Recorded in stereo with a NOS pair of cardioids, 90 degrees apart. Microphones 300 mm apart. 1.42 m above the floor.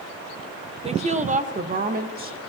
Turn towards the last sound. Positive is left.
turn(degrees=-30)